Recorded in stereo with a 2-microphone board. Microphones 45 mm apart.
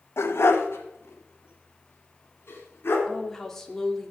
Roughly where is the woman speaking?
Centre.